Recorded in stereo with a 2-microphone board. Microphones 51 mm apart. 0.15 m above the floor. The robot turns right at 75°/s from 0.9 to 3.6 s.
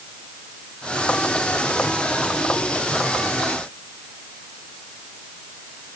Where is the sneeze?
I don't hear a sneeze.